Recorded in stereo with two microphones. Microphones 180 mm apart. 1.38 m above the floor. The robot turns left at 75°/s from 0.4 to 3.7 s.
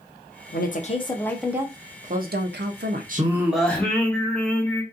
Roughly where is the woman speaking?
Left.